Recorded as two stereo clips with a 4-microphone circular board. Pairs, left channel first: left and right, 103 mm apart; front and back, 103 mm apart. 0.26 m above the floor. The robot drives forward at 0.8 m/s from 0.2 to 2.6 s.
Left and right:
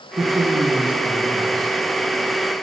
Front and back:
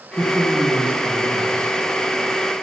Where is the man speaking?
100° right, 2 m; by 1.8 s 130° right, 2.5 m.